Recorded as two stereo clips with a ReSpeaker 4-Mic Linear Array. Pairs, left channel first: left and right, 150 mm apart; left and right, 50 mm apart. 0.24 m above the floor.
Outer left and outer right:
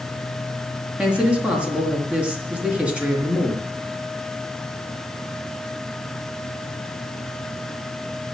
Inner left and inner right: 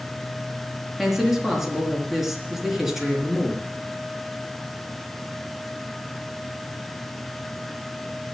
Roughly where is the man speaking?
Centre.